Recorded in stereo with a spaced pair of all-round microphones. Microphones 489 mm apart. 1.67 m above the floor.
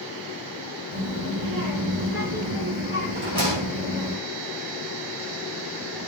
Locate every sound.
0.9 s a child speaking: 40° right (ahead or behind), 3.5 m
3.1 s a rattle: 70° right (ahead or behind), 4 m